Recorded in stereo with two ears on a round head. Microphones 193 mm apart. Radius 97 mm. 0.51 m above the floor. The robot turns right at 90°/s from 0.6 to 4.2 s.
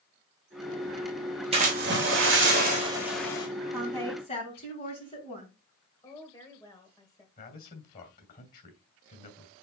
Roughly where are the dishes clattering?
I don't hear dishes clattering.